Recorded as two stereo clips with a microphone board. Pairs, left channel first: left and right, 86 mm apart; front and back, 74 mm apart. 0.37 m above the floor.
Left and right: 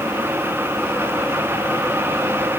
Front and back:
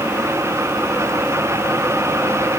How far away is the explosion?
I don't hear an explosion.